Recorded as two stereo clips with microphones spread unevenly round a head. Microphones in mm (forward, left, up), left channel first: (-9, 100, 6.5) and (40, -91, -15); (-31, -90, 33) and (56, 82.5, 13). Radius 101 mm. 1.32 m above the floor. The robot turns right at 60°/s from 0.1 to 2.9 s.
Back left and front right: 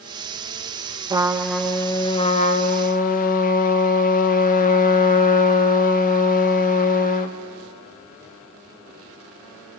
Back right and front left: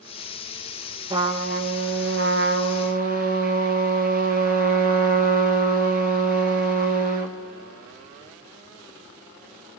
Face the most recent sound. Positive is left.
turn(degrees=100)